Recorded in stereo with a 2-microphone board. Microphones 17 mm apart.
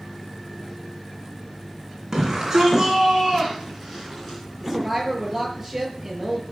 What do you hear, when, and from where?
2.1 s a shout: 20° right (ahead or behind), 2.5 m; by 4.4 s 5° left (ahead or behind), 3 m
4.6 s a woman speaking: 5° right (ahead or behind), 7 m